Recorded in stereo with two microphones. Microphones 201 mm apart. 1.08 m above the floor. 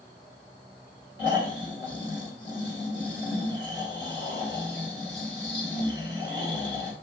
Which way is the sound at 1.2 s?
70° left (ahead or behind).